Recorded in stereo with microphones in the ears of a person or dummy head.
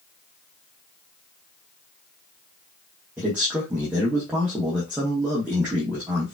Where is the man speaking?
5° right (ahead or behind), 1.3 m.